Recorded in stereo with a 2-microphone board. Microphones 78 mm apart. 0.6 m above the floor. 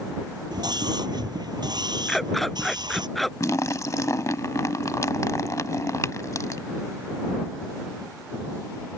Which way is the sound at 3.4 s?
45° left (ahead or behind).